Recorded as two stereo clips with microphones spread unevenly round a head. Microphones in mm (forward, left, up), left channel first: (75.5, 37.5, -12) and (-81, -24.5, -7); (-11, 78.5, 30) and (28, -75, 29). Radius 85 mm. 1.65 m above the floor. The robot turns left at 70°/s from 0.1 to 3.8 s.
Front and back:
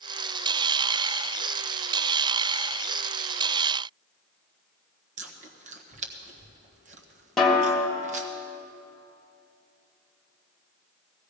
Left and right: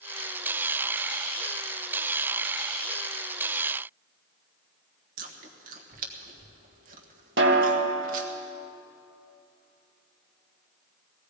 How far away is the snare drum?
About 1.8 m.